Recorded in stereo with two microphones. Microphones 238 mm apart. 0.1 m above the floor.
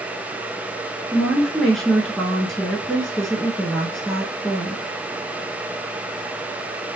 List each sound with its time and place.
1.1 s a woman speaking: centre (ahead or behind), 1.3 m